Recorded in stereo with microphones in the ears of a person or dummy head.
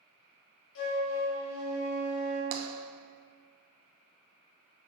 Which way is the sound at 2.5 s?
35° right (ahead or behind).